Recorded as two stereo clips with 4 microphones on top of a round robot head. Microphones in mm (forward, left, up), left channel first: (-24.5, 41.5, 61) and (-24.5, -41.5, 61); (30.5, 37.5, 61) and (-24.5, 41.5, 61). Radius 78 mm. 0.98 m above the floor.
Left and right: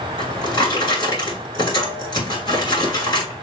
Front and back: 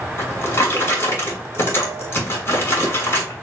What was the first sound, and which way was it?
A drawer, 35° left.